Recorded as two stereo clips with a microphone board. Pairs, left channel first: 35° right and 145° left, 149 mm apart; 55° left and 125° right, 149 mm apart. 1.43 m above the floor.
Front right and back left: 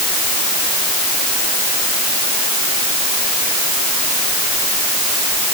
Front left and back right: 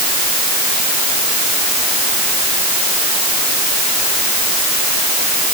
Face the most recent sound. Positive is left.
No sound to turn to.